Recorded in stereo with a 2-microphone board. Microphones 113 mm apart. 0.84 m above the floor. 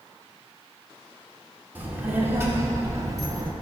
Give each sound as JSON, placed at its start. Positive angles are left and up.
{"t": 1.8, "sound": "a child speaking", "side_deg": -15, "distance_m": 1.9}